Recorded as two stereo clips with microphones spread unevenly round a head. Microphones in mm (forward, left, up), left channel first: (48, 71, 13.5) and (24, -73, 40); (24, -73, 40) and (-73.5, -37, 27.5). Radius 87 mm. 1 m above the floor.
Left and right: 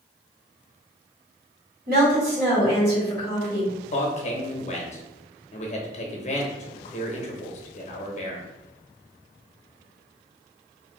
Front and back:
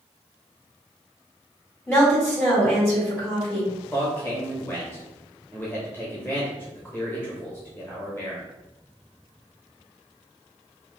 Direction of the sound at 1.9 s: 90° right.